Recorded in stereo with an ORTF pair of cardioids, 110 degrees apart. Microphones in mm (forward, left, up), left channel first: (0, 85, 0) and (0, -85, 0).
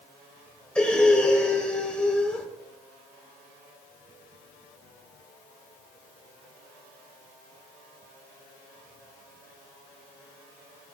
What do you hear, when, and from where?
0.8 s breathing: 5° left, 3.5 m